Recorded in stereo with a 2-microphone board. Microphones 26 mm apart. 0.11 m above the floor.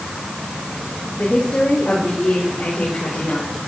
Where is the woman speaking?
65° left (ahead or behind), 9 m; by 3.5 s 80° left, 7 m.